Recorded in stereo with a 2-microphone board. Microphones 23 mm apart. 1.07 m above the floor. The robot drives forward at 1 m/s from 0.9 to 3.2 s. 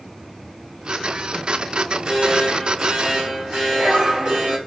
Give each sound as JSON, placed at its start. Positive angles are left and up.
{"t": 1.8, "sound": "an alarm", "side_deg": -35, "distance_m": 6.0}